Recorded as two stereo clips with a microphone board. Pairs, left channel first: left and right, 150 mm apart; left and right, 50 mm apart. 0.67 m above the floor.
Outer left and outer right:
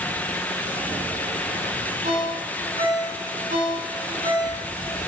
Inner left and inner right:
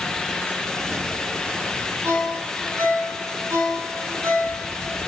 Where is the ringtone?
85° right, 5 m.